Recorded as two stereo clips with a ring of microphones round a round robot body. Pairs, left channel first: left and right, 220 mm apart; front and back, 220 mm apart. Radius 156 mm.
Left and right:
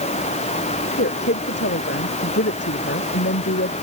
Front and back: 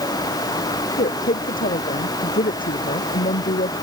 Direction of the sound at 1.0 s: 50° left.